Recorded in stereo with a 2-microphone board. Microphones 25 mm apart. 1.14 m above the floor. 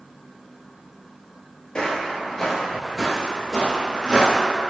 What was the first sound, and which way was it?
Footsteps, 35° left (ahead or behind).